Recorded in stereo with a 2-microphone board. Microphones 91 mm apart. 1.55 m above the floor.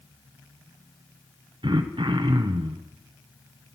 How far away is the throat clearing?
About 0.8 m.